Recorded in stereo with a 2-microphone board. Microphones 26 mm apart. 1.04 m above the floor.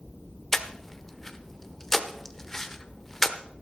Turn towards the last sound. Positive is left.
turn(degrees=15)  # may be behind; listen again after turning